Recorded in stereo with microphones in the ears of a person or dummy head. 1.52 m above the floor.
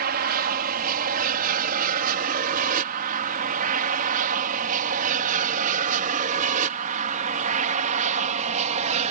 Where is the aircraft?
60° right (ahead or behind); by 9.1 s 45° right (ahead or behind).